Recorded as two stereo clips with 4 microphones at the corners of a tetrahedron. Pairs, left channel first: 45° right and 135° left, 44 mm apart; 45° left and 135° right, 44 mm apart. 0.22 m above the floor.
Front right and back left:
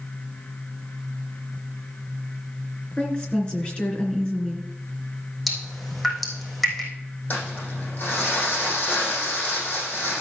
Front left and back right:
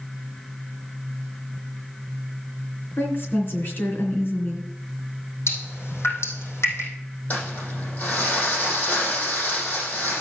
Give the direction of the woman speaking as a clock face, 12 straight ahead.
11 o'clock.